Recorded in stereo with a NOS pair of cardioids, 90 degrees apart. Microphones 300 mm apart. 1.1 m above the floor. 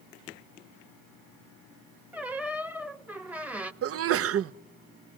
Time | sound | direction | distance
2.1 | a squeak | 5° right | 1.0 m
3.8 | a sneeze | 50° right | 0.7 m